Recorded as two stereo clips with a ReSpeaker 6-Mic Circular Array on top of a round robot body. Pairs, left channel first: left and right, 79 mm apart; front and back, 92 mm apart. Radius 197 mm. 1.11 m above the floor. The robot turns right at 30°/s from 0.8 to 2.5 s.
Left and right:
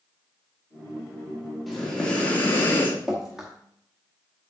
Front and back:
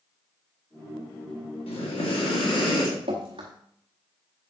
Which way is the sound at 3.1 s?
175° right.